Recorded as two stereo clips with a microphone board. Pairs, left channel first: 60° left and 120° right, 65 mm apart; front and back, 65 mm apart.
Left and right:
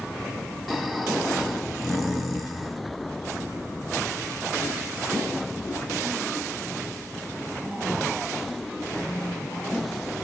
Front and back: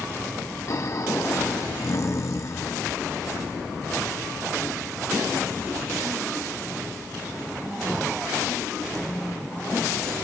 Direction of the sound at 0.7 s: 30° right.